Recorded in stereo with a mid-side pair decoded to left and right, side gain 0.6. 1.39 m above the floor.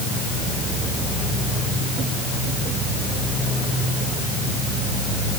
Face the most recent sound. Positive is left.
No sound to turn to.